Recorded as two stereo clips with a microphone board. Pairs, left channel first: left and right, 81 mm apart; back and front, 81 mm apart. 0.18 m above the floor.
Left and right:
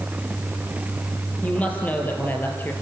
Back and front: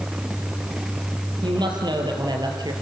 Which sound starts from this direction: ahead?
A woman speaking, at 1.4 s.